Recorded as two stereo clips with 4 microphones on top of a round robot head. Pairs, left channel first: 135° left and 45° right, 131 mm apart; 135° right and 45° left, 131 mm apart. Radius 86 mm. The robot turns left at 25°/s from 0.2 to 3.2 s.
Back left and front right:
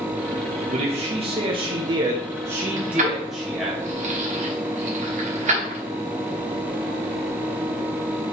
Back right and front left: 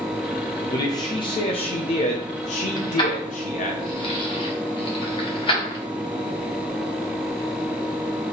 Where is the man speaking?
70° right, 0.7 m; by 3.8 s 135° right, 0.7 m.